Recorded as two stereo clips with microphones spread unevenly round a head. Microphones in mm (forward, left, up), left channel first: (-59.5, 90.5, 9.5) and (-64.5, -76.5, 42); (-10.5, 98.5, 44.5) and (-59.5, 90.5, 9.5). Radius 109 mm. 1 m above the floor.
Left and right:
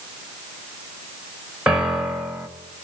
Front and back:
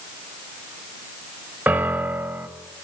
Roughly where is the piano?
Behind.